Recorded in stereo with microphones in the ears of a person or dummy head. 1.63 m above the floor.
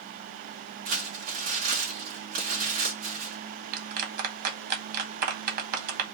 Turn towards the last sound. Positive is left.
turn(degrees=-55)  # may be behind; listen again after turning